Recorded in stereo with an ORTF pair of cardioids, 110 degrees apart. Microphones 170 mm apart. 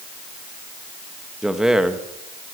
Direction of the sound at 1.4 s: 5° right.